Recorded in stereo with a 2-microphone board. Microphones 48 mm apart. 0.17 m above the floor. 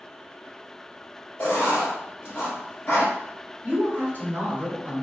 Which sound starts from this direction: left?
Writing, at 1.4 s.